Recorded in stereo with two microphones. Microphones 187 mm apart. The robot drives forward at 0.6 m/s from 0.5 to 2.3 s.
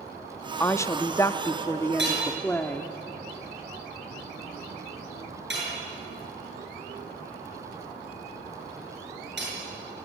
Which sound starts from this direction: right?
Hammering, at 2.0 s.